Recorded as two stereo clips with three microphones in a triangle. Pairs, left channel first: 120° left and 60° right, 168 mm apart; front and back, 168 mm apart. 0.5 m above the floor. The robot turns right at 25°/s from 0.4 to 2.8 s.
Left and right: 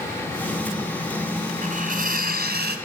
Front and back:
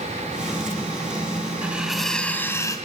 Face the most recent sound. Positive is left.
turn(degrees=-70)